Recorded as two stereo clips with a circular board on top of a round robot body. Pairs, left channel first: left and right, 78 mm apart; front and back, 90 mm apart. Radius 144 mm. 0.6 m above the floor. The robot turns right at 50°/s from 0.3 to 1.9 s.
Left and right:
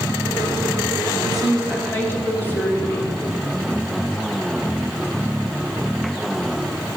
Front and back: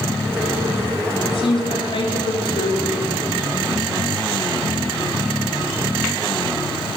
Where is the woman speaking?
5° right, 1.5 m; by 3.1 s 25° left, 1.5 m.